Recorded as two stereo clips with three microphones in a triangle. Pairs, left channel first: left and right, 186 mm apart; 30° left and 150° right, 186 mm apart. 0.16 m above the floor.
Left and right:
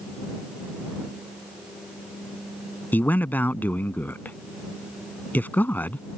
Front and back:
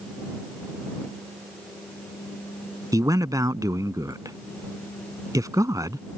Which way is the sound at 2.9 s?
160° left.